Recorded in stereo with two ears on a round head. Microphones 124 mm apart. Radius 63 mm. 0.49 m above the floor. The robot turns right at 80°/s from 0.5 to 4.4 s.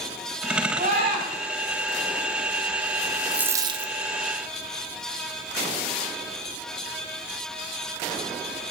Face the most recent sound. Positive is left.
turn(degrees=-90)